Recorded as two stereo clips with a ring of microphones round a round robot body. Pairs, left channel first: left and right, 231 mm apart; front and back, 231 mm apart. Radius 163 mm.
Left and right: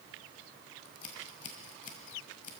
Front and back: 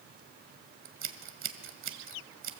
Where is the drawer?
No drawer in this recording.